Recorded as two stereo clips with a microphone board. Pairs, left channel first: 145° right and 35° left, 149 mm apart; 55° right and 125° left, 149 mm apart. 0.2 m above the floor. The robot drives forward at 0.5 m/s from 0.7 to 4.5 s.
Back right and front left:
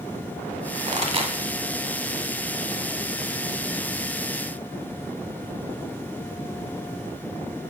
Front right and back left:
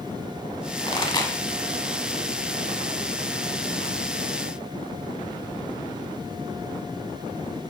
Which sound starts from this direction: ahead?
A pop, at 0.9 s.